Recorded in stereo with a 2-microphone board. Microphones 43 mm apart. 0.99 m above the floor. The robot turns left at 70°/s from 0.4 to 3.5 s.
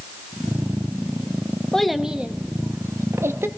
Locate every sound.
1.7 s a child speaking: 10° left (ahead or behind), 0.7 m; by 3.5 s 65° right (ahead or behind), 0.7 m